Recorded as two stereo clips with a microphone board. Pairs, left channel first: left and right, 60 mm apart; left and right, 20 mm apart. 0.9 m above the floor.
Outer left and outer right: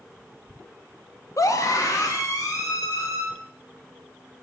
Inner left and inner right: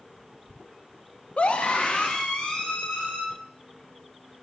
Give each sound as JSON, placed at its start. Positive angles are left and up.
{"t": 1.4, "sound": "a scream", "side_deg": 65, "distance_m": 0.9}